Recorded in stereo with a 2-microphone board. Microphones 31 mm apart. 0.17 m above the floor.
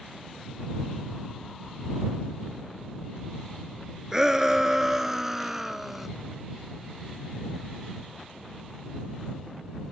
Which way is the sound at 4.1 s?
15° right (ahead or behind).